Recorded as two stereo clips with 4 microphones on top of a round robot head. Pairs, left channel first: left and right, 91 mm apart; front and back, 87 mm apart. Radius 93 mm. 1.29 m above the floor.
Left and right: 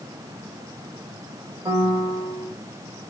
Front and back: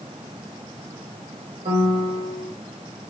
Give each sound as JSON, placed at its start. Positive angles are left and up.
{"t": 1.6, "sound": "a piano", "azimuth_deg": -140, "distance_m": 0.9}